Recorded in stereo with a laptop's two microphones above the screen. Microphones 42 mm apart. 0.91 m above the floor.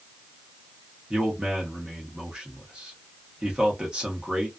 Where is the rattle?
I don't hear a rattle.